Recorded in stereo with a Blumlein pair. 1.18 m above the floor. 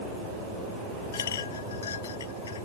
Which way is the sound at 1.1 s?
65° left.